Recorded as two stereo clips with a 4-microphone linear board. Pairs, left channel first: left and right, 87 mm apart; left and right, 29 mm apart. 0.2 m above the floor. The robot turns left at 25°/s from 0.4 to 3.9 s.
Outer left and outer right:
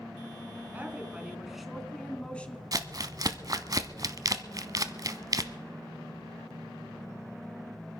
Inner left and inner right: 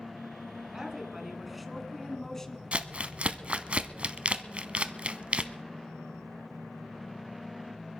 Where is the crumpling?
45° right (ahead or behind), 0.8 m.